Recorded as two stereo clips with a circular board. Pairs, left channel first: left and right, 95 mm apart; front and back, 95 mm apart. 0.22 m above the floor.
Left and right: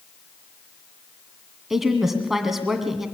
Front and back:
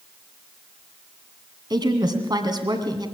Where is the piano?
No piano in this recording.